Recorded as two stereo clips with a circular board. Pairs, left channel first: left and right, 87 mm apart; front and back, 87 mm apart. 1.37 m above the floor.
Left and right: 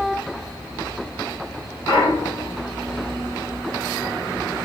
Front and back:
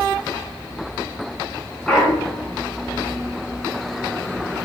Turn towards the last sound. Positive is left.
turn(degrees=80)